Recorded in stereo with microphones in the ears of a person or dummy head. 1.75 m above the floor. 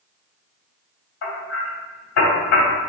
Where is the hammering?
75° left (ahead or behind), 3 m.